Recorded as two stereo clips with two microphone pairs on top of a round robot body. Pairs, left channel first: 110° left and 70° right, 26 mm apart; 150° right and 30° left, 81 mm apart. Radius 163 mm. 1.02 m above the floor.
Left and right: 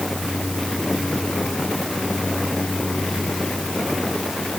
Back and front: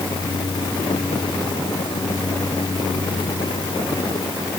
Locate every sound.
Only background noise.